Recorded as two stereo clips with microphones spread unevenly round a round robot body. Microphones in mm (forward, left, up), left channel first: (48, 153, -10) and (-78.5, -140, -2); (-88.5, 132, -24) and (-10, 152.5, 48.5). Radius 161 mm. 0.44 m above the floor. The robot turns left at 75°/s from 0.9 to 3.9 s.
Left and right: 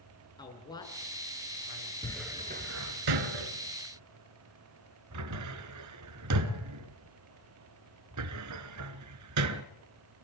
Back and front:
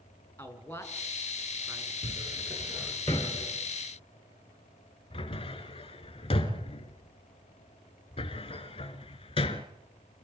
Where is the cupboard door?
10° right, 1.8 m; by 9.6 s 150° right, 1.8 m.